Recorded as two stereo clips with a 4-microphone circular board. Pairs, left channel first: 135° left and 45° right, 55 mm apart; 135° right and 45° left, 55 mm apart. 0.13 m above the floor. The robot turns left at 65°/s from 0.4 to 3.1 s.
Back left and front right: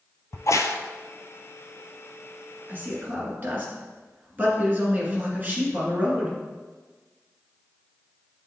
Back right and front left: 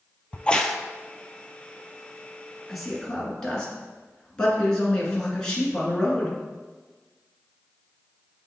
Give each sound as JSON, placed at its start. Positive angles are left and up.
{"t": 0.3, "sound": "a crack", "azimuth_deg": 160, "distance_m": 0.5}
{"t": 2.7, "sound": "a man speaking", "azimuth_deg": -40, "distance_m": 1.8}